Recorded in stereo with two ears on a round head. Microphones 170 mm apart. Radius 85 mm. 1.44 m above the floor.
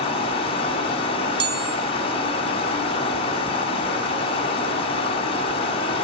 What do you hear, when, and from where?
0.0 s running water: 30° left (ahead or behind), 1.8 m
1.4 s a chime: 25° right (ahead or behind), 1.0 m